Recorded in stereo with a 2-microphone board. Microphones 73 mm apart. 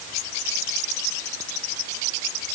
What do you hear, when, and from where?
Only background noise.